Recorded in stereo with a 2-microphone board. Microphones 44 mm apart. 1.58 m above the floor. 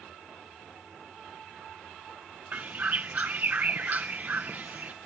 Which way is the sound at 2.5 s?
40° right (ahead or behind).